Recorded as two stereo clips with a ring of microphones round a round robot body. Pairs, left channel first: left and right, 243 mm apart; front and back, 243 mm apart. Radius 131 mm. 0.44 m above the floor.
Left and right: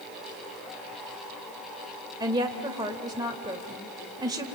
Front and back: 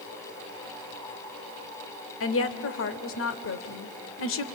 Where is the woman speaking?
15° right, 1.4 m.